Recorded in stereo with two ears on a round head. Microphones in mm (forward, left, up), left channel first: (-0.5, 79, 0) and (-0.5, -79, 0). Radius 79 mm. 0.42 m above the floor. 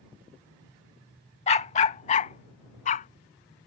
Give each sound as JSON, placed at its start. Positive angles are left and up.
{"t": 1.5, "sound": "a dog barking", "side_deg": 35}